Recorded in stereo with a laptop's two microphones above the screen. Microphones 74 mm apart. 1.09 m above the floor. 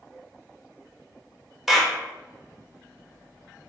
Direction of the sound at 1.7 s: 5° right (ahead or behind).